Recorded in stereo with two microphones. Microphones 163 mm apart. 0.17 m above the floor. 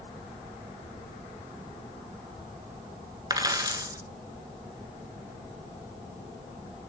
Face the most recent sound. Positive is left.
turn(degrees=-25)  # may be behind; listen again after turning